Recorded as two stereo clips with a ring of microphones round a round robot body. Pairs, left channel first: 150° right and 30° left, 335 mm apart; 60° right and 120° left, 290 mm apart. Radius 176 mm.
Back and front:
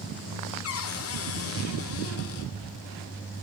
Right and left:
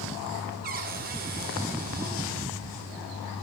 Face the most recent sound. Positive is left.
turn(degrees=175)